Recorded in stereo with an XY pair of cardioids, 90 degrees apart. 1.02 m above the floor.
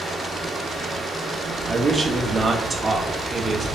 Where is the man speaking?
30° right, 0.9 m.